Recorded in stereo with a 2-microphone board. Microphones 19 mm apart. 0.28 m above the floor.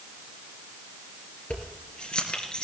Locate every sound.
1.5 s keys jangling: 55° left (ahead or behind), 3 m; by 2.6 s 45° left (ahead or behind), 3 m